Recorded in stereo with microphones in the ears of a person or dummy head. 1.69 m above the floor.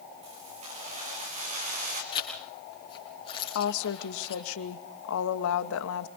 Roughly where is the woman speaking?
Left.